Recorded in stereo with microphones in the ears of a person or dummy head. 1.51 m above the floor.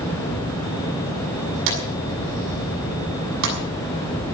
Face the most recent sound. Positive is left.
turn(degrees=-80)